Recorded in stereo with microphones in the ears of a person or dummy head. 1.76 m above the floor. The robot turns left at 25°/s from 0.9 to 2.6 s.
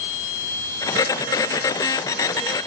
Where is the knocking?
No knocking in this recording.